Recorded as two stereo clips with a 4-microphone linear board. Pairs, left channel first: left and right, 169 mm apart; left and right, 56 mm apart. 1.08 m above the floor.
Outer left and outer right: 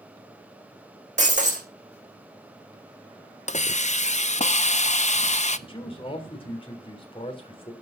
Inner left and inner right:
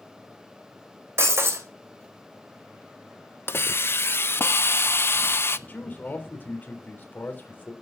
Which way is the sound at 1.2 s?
45° right (ahead or behind).